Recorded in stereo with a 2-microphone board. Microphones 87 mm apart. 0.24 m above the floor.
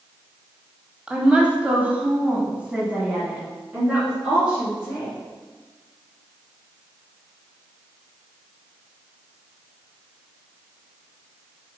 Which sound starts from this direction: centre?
A woman speaking, at 1.1 s.